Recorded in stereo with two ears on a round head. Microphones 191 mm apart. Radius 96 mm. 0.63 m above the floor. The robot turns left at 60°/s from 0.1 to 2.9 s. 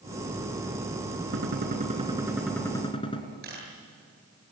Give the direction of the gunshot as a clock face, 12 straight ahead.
4 o'clock.